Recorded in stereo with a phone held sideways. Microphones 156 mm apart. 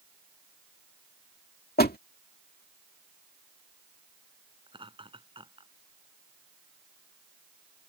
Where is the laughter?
35° right (ahead or behind).